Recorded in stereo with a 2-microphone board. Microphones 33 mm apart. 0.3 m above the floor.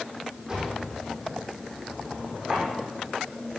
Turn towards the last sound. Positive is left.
turn(degrees=-25)  # may be behind; listen again after turning